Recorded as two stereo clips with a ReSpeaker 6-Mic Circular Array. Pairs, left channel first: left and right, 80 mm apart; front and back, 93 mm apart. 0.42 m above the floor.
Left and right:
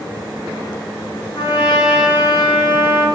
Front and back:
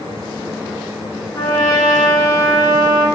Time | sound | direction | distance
1.4 | a trumpet | 60° left | 2 m